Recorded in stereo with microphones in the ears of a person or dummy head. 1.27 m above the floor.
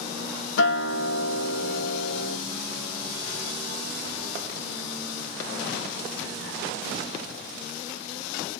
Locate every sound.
0.6 s a guitar: 60° left (ahead or behind), 1.3 m